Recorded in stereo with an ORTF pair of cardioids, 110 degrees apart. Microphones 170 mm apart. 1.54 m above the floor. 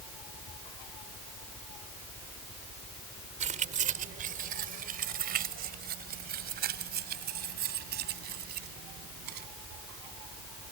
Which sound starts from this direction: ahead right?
Keys jangling, at 3.4 s.